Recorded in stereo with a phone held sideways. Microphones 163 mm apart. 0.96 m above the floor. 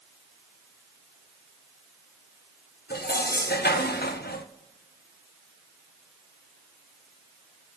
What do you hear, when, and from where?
2.9 s dishes clattering: 85° left, 0.8 m